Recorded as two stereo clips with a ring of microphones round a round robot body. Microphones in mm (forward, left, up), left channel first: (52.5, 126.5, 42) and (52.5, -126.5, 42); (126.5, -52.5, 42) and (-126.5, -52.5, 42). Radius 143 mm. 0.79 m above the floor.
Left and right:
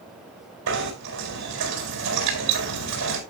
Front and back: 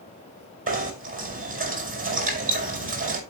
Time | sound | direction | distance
0.7 | knocking | 120° right | 4.5 m